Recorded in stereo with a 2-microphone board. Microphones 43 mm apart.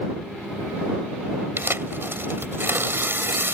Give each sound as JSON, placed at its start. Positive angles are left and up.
{"t": 1.6, "sound": "tearing paper", "side_deg": -55}